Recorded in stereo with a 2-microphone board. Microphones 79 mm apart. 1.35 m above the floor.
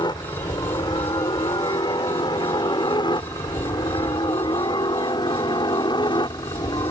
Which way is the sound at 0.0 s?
70° left (ahead or behind).